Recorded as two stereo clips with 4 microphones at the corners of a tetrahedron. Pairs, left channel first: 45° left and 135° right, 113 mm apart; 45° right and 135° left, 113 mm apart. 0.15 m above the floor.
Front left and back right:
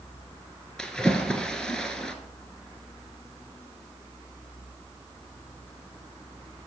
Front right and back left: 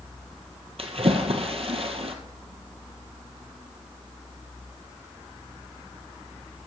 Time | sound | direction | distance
0.8 | a splash | 130° left | 1.1 m